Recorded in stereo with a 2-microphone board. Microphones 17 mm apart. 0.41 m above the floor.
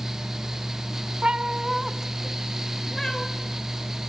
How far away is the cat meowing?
About 1.0 m.